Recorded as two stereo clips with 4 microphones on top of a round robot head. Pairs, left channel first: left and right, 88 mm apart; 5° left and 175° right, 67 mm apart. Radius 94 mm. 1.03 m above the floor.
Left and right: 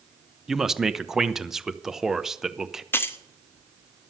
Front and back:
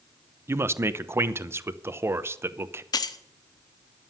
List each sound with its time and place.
0.5 s a man speaking: 175° right, 0.8 m
2.9 s keys jangling: 25° left, 0.9 m